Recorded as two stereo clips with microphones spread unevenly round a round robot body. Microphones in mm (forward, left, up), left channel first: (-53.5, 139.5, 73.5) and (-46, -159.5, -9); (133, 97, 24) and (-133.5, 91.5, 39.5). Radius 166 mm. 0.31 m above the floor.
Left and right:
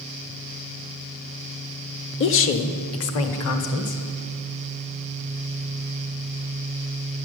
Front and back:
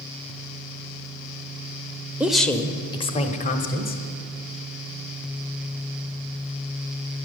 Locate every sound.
2.2 s a woman speaking: 95° left, 0.9 m; by 4.0 s 45° left, 1.4 m